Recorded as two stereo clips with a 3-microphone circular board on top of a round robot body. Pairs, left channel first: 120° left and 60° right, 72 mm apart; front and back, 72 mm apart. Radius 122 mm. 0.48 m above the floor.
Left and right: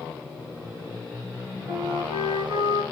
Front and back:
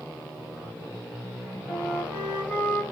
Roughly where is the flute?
Right.